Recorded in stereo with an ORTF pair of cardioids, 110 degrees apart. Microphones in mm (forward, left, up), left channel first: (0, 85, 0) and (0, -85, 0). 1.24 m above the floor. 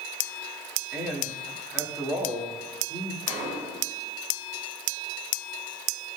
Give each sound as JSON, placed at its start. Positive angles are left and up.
{"t": 0.9, "sound": "a man speaking", "azimuth_deg": -10, "distance_m": 2.0}
{"t": 3.3, "sound": "a gunshot", "azimuth_deg": -60, "distance_m": 2.0}